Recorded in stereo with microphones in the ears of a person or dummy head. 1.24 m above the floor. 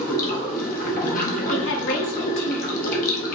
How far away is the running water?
About 1.3 m.